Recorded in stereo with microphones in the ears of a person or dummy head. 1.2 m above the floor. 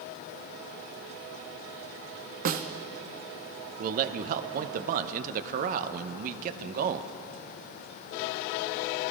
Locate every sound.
2.5 s a snare drum: 40° right (ahead or behind), 0.5 m
3.8 s a man speaking: 50° right (ahead or behind), 0.6 m